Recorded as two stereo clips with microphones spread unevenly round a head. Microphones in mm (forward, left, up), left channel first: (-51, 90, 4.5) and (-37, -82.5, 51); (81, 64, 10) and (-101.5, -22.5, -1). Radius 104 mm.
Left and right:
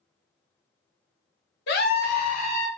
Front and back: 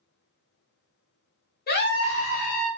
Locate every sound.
1.7 s a scream: 70° left, 0.8 m; by 2.7 s 40° left, 1.2 m